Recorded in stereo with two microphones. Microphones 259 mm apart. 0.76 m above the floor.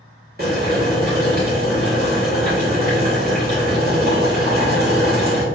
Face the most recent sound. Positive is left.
turn(degrees=-40)  # may be behind; listen again after turning